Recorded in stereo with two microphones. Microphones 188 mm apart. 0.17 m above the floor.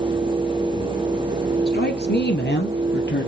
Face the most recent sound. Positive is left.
turn(degrees=75)  # may be behind; listen again after turning